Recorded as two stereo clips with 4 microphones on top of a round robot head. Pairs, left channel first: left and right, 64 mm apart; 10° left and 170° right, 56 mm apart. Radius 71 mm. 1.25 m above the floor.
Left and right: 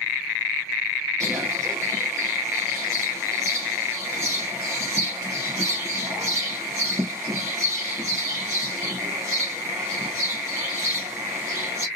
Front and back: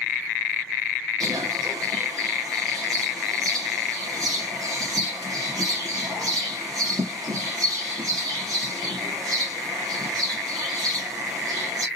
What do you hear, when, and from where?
1.2 s a bird: 145° right, 1.2 m